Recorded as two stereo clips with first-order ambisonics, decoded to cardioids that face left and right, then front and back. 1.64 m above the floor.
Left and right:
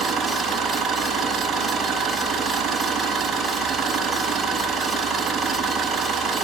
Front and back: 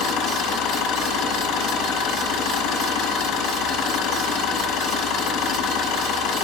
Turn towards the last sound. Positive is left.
turn(degrees=-20)